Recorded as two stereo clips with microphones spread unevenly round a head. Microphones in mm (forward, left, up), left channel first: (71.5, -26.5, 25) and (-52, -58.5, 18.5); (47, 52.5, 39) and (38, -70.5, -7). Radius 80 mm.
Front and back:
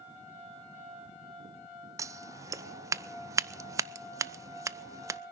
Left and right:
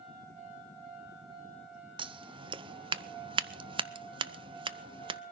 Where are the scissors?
105° right, 0.6 m.